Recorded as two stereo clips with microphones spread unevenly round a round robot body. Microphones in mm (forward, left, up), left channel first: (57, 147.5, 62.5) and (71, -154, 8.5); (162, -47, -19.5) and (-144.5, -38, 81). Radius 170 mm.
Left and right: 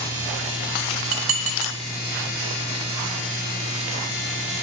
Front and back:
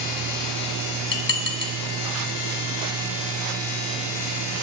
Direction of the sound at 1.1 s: 45° right.